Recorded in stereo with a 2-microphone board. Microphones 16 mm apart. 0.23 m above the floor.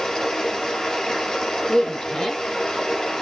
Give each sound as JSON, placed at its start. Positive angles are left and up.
{"t": 0.0, "sound": "running water", "side_deg": 35, "distance_m": 4.0}
{"t": 1.7, "sound": "a woman speaking", "side_deg": 40, "distance_m": 1.8}